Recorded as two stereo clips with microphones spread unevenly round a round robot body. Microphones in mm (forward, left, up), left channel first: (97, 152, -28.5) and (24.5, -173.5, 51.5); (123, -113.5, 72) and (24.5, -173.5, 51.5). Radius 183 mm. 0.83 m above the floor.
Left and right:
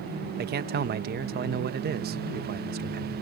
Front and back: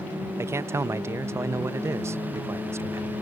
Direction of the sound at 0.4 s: 165° right.